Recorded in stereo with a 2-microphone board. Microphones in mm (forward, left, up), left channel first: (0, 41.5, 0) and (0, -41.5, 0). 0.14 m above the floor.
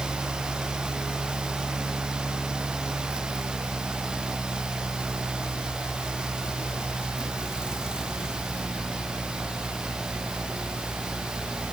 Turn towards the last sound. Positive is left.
No sound to turn to.